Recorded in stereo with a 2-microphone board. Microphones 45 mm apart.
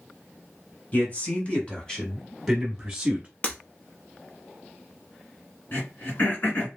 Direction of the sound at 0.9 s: 35° left (ahead or behind).